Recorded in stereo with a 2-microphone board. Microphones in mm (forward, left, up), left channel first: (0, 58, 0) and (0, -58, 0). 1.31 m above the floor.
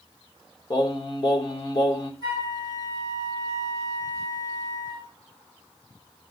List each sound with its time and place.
0.7 s singing: 35° left (ahead or behind), 1.4 m
2.2 s a flute: 40° left (ahead or behind), 7.5 m